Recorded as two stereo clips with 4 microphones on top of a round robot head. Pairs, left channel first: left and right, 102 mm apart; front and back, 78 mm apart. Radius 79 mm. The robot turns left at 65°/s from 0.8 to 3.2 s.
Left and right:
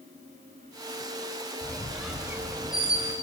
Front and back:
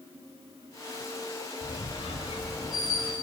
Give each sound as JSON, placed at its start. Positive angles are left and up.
{"t": 1.6, "sound": "a squeak", "azimuth_deg": 25, "distance_m": 2.5}